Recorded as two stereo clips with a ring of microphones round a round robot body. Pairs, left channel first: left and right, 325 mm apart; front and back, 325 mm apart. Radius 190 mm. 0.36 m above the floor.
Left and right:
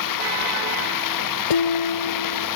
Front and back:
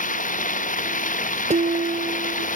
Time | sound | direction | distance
0.0 | running water | 65° left | ?
1.5 | dishes clattering | 110° left | ?